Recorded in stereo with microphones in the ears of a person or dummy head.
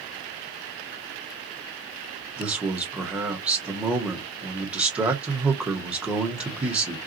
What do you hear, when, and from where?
2.4 s a man speaking: 5° right (ahead or behind), 1.0 m